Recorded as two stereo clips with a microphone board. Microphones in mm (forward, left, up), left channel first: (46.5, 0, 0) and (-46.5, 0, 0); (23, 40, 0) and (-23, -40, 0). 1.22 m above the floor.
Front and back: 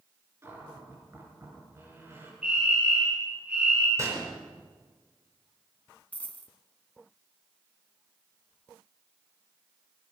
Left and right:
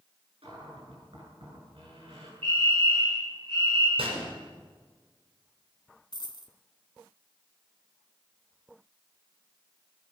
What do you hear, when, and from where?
0.4 s a cupboard door: 120° right, 7.5 m
2.4 s a fire alarm: 105° right, 9.5 m
4.0 s a gunshot: 125° right, 5 m
6.1 s a dropped coin: 70° left, 1.7 m